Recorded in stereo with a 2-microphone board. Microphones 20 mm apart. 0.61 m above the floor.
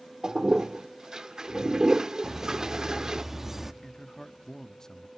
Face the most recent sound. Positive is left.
turn(degrees=25)  # may be behind; listen again after turning